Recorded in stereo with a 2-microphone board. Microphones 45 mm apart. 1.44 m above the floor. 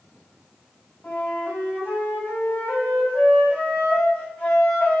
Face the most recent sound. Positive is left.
turn(degrees=25)  # may be behind; listen again after turning